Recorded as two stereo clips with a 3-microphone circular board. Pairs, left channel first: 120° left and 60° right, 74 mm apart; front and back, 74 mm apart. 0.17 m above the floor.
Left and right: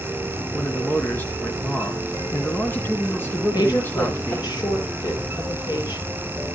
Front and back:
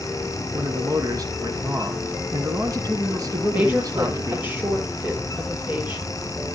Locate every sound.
0.5 s a man speaking: 175° left, 2.5 m
3.5 s a woman speaking: 115° left, 4.5 m